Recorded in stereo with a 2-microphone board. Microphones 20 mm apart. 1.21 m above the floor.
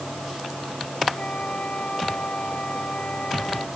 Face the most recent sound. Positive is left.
turn(degrees=60)  # may be behind; listen again after turning